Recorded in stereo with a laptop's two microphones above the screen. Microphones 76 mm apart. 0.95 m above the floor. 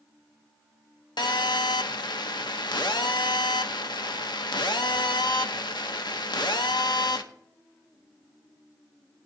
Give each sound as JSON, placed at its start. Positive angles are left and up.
{"t": 1.2, "sound": "a phone buzzing", "side_deg": 70, "distance_m": 0.8}